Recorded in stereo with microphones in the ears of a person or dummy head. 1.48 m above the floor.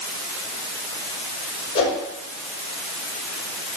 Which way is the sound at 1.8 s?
30° left (ahead or behind).